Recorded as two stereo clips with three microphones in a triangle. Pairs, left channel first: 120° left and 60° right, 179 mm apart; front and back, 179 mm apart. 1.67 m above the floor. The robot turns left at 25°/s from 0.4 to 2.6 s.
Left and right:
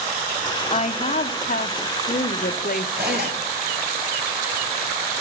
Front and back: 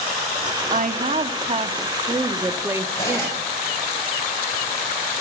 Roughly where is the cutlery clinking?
Right.